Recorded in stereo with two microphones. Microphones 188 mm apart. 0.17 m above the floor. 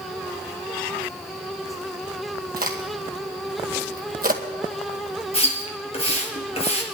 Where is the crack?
50° right (ahead or behind), 2.0 m.